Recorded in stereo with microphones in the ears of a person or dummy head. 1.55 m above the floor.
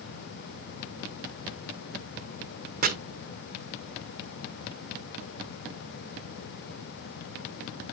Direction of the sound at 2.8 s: 50° right (ahead or behind).